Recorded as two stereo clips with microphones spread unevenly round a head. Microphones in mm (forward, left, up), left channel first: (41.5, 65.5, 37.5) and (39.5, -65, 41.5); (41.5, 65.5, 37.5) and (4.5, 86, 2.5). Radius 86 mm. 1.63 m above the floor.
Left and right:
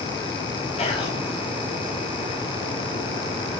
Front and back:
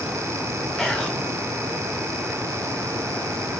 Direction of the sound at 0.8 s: 50° left.